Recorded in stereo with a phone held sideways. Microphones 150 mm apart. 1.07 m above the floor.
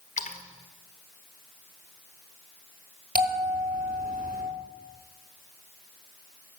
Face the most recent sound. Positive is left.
turn(degrees=-85)